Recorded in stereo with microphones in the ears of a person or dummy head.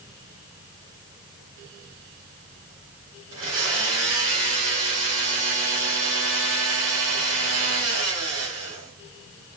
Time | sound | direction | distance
3.3 | a blender | 75° right (ahead or behind) | 2.5 m